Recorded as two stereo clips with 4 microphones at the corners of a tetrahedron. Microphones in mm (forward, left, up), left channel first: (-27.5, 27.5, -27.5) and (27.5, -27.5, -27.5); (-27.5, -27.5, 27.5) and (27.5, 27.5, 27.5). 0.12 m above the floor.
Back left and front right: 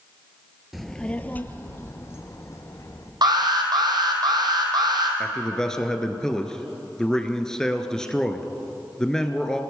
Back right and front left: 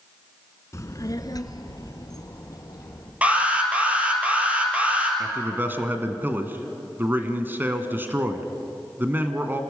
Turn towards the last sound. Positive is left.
turn(degrees=65)